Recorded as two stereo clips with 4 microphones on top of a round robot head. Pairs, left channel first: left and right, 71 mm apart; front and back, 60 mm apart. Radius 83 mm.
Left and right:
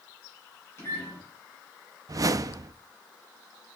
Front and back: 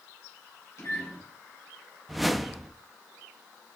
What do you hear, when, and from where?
0.8 s a microwave: 40° left, 3 m
2.1 s a whoosh: 90° right, 0.5 m